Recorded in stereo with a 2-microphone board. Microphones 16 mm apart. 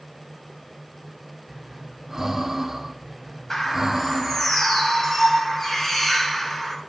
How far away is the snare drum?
I don't hear a snare drum.